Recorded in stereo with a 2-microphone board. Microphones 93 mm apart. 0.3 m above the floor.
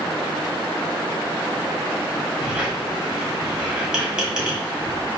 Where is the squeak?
10° right (ahead or behind), 1.4 m.